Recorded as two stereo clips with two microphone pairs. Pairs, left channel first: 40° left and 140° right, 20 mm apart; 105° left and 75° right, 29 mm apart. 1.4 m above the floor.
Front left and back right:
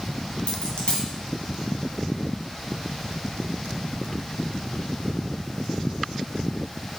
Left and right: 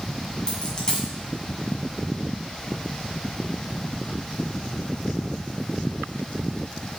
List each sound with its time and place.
0.5 s a dropped coin: 55° left, 2.0 m